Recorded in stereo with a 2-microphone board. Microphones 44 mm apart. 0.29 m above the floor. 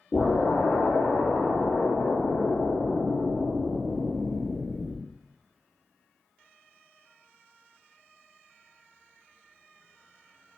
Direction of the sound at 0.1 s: 35° left (ahead or behind).